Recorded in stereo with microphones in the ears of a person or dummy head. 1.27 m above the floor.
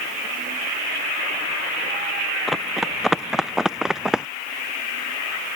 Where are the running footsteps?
5° right (ahead or behind); by 4.3 s 10° right (ahead or behind).